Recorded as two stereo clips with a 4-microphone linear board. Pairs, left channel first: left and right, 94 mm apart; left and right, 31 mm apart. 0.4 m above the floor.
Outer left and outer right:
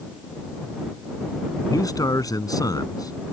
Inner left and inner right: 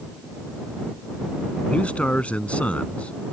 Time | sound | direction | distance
1.7 | a man speaking | 40° left (ahead or behind) | ?